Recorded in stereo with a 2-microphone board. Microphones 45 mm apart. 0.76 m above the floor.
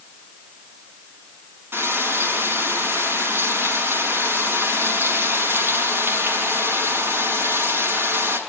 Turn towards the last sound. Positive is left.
turn(degrees=-65)  # may be behind; listen again after turning